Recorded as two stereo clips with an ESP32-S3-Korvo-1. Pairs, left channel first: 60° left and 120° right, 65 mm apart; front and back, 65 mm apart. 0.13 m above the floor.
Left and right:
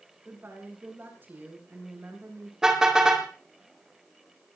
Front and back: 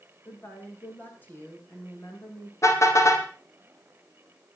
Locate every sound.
0.2 s a woman speaking: 60° right, 7 m
2.6 s a car horn: 40° right, 3 m